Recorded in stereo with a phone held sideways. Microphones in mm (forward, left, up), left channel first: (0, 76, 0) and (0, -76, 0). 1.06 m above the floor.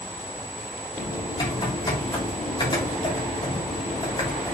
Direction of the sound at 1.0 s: 30° left (ahead or behind).